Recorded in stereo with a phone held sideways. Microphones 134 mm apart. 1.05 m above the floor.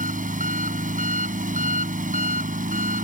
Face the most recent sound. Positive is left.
turn(degrees=-70)  # may be behind; listen again after turning